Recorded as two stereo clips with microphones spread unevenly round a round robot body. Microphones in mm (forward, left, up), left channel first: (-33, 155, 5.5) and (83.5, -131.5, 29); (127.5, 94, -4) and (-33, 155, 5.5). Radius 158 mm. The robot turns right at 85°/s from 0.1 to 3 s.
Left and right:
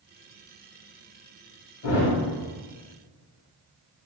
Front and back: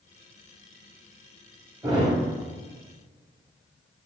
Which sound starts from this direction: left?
A thud, at 1.8 s.